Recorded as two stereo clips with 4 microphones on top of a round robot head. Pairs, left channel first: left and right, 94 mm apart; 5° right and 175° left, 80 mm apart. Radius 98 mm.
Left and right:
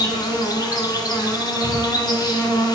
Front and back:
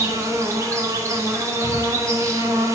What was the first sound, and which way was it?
An insect, 125° left.